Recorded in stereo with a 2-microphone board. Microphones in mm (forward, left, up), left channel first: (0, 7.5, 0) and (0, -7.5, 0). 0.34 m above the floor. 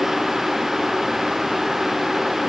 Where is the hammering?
No hammering in this recording.